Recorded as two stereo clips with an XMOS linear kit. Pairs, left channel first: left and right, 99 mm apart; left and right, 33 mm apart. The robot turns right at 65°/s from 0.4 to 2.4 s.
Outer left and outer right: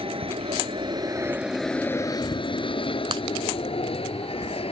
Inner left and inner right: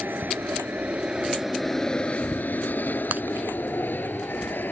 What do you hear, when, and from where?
0.0 s an aircraft: 70° right (ahead or behind); by 4.7 s 75° left (ahead or behind)
3.1 s breaking glass: 60° right (ahead or behind)